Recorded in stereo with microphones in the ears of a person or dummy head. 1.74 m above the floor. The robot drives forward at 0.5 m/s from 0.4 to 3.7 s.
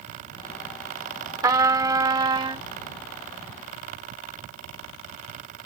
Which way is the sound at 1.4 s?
20° right (ahead or behind).